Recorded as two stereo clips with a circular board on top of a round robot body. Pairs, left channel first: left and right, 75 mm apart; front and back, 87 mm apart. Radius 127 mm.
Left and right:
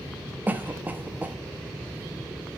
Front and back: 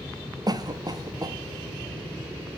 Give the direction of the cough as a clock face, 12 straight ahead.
5 o'clock.